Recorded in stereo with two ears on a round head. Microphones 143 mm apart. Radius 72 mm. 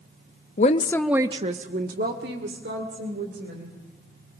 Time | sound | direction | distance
0.6 | a woman speaking | 50° left (ahead or behind) | 0.8 m